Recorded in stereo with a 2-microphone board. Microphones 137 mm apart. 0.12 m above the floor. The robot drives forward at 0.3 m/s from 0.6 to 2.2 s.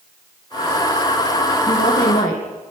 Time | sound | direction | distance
1.7 | a woman speaking | 70° left (ahead or behind) | 7 m